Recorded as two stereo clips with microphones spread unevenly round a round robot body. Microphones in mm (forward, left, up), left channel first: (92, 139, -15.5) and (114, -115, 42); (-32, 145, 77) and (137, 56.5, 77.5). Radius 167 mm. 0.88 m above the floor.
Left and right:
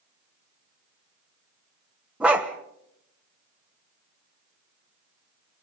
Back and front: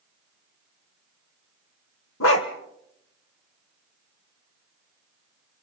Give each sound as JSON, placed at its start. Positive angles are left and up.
{"t": 2.2, "sound": "a dog barking", "azimuth_deg": -165, "distance_m": 1.0}